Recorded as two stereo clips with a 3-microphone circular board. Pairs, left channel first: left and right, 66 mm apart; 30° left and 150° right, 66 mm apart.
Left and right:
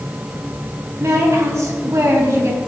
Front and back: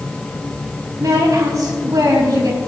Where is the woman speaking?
135° right, 4 m.